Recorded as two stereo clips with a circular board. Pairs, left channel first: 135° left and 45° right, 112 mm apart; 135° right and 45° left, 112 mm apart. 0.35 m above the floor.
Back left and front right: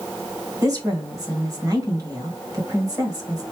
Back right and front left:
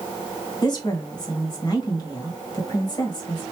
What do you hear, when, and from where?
0.6 s a woman speaking: 95° right, 1.7 m